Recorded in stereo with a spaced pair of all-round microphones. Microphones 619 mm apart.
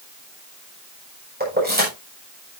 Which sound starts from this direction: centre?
Keys jangling, at 1.4 s.